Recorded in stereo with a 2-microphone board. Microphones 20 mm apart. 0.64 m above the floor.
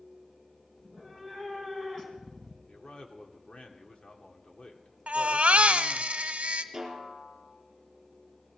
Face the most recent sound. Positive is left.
turn(degrees=-25)  # may be behind; listen again after turning